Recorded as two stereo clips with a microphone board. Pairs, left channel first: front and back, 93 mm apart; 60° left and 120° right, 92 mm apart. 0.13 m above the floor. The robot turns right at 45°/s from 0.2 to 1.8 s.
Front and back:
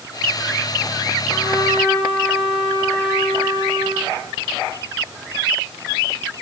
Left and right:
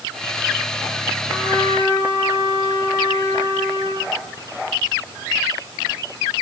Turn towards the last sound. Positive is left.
turn(degrees=20)